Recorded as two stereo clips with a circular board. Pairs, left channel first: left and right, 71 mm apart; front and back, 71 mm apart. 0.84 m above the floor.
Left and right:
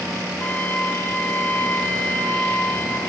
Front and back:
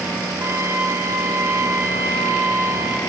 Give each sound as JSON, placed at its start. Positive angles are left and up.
{"t": 0.4, "sound": "a trumpet", "azimuth_deg": 150, "distance_m": 1.2}